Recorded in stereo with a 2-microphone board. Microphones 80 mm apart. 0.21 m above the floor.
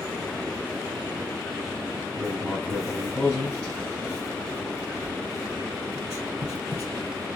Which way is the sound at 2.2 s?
30° left (ahead or behind).